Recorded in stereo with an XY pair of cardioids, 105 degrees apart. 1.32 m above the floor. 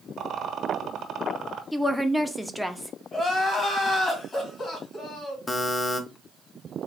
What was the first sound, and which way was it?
A rattle, 60° right.